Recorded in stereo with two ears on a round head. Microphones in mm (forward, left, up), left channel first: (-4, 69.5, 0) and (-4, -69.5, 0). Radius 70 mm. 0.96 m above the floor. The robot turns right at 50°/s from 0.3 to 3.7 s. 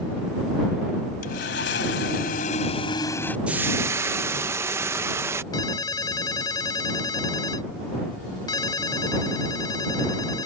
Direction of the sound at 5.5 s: 25° left (ahead or behind).